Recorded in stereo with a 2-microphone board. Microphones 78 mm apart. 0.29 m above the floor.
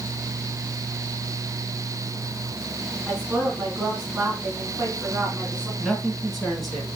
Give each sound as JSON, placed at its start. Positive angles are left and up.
{"t": 3.1, "sound": "a woman speaking", "side_deg": -15, "distance_m": 3.0}
{"t": 5.8, "sound": "a man speaking", "side_deg": 0, "distance_m": 3.5}